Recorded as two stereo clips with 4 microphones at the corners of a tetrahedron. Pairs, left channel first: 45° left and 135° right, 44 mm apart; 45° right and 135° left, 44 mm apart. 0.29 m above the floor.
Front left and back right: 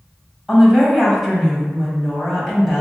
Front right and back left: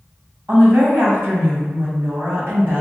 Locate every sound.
0.5 s a woman speaking: 145° left, 1.5 m